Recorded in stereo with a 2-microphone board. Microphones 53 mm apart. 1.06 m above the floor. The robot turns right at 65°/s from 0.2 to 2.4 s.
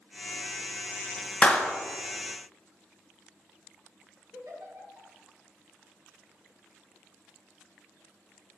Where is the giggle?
75° right (ahead or behind), 1.8 m.